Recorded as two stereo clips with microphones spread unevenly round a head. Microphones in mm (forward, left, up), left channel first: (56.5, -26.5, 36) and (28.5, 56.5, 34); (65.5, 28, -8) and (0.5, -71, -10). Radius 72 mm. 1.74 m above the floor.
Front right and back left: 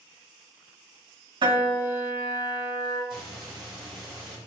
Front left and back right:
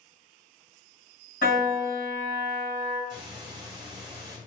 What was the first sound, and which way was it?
A piano, 85° left.